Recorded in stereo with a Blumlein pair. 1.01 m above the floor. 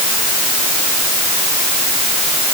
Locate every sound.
Only background noise.